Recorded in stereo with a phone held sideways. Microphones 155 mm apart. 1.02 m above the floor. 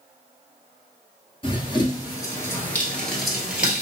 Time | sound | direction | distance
1.4 | running footsteps | 35° left (ahead or behind) | 1.2 m